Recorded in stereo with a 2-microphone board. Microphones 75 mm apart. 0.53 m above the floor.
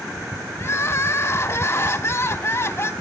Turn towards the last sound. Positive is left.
turn(degrees=35)  # may be behind; listen again after turning